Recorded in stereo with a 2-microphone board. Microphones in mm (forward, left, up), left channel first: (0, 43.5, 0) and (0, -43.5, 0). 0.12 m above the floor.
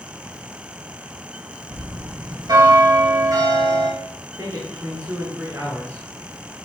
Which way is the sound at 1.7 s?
50° right (ahead or behind).